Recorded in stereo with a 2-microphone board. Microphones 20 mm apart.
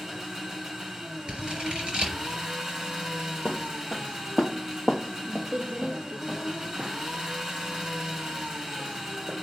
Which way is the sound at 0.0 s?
30° right (ahead or behind).